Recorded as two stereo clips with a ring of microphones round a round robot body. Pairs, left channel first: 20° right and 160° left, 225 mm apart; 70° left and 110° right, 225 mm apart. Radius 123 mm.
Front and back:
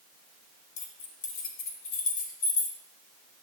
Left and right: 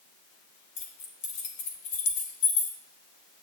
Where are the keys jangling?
35° left, 1.4 m.